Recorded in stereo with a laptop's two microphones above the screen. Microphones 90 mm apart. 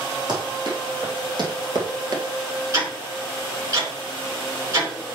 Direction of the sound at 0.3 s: 55° right (ahead or behind).